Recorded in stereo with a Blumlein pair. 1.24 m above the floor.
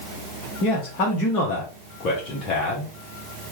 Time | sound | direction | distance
0.6 | a man speaking | 35° left | 0.9 m